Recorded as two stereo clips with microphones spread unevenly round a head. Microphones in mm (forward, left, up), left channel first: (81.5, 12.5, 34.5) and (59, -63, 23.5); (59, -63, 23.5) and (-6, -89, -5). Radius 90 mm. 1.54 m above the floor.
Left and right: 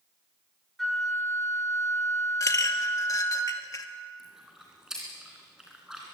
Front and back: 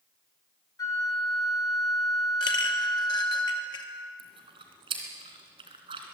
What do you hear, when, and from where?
0.8 s a flute: 10° right, 4.5 m
2.4 s a clink: 35° left, 2 m
4.2 s chewing: 160° left, 2.5 m